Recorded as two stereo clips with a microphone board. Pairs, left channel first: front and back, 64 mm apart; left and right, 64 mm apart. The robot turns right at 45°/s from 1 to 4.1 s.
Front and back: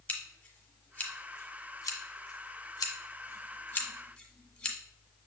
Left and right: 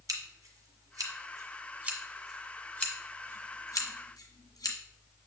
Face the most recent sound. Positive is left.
turn(degrees=80)